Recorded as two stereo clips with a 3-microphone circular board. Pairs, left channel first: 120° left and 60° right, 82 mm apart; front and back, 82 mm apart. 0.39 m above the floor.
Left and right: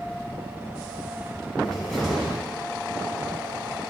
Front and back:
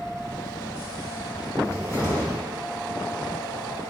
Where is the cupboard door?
40° left, 1.9 m.